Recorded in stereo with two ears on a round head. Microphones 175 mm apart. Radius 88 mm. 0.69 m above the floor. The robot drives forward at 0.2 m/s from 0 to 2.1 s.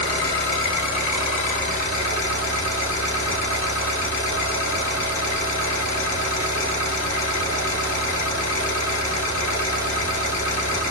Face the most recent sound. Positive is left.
turn(degrees=40)  # may be behind; listen again after turning